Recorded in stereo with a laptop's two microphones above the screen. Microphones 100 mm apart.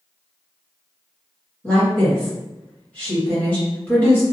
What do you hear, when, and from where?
1.6 s a woman speaking: 15° left (ahead or behind), 1.6 m